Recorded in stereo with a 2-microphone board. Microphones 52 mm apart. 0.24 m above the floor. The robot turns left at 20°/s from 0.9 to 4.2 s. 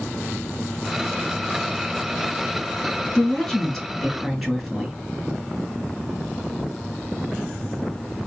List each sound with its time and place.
3.1 s a woman speaking: 20° left (ahead or behind), 1.9 m; by 4.9 s 5° left (ahead or behind), 1.9 m